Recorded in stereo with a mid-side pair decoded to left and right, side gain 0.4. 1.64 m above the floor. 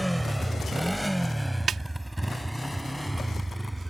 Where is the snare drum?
55° right.